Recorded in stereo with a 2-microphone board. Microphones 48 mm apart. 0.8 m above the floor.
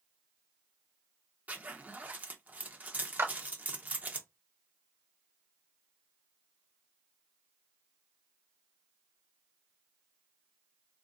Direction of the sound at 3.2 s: 60° right (ahead or behind).